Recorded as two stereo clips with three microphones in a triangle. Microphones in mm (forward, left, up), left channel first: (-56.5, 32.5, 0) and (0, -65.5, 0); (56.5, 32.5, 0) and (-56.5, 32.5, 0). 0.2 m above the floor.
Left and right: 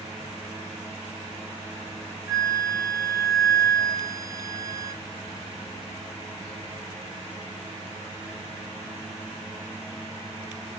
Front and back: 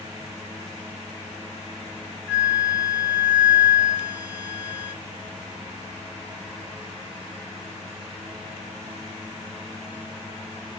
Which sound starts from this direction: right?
A flute, at 2.3 s.